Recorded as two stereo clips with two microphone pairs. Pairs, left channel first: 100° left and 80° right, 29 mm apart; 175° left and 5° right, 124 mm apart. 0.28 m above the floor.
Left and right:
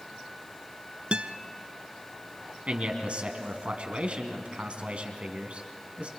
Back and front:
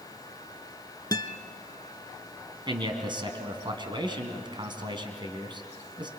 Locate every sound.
1.1 s a guitar: 130° right, 0.8 m
2.7 s a man speaking: 50° right, 2.5 m